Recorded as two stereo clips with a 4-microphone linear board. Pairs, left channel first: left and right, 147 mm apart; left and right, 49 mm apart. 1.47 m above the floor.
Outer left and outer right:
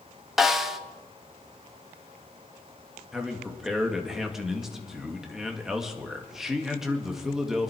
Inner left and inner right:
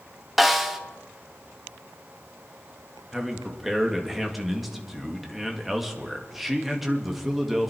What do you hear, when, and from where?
0.4 s a snare drum: centre (ahead or behind), 1.1 m
3.1 s a man speaking: centre (ahead or behind), 1.8 m